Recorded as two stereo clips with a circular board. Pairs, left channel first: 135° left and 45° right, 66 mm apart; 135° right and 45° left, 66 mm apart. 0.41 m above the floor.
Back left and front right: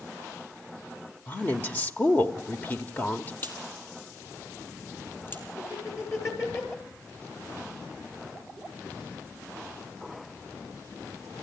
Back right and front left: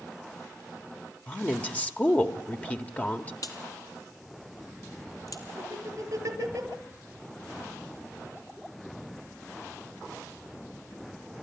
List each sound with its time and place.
1.3 s a woman speaking: 175° left, 1.4 m
3.4 s a crack: 165° right, 2.5 m
5.6 s laughter: 85° left, 7 m